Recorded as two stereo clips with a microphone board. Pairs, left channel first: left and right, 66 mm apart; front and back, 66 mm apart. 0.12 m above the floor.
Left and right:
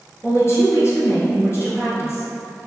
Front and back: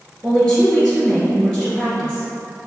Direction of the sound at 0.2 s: 85° left.